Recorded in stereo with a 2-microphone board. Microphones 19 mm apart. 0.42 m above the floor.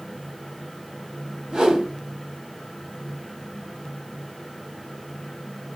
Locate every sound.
1.5 s a whoosh: 45° right (ahead or behind), 2.5 m